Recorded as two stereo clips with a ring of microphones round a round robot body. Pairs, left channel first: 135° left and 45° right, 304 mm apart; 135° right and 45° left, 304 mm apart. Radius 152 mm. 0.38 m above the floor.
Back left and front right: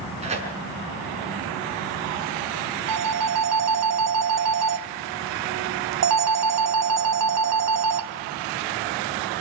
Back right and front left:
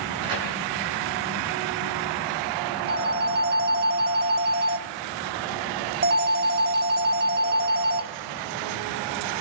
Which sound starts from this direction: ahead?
A phone ringing, at 2.9 s.